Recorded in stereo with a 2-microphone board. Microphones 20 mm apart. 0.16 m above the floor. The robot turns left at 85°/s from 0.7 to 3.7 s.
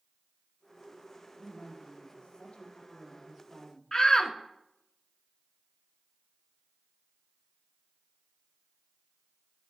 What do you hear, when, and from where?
1.4 s a woman speaking: 170° right, 5.5 m; by 3.8 s 10° right, 5.5 m
3.9 s a shout: 35° left (ahead or behind), 1.4 m